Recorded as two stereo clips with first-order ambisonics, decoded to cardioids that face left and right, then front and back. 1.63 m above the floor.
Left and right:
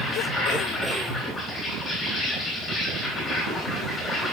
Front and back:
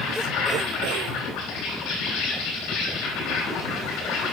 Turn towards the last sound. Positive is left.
turn(degrees=35)